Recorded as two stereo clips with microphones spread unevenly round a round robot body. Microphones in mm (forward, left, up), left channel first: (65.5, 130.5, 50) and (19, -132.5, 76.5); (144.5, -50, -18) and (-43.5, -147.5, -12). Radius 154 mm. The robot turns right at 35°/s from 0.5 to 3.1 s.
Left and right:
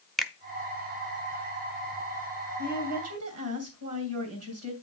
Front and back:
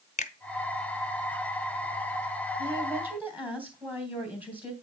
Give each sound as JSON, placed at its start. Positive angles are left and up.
{"t": 0.2, "sound": "a finger snap", "azimuth_deg": -5, "distance_m": 0.7}
{"t": 2.6, "sound": "a woman speaking", "azimuth_deg": -90, "distance_m": 2.5}